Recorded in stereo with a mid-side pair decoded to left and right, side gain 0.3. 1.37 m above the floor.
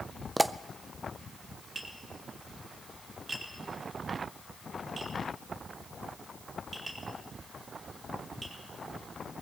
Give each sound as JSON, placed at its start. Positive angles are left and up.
{"t": 0.4, "sound": "a pop", "azimuth_deg": -15, "distance_m": 0.6}
{"t": 1.8, "sound": "tapping", "azimuth_deg": -45, "distance_m": 3.5}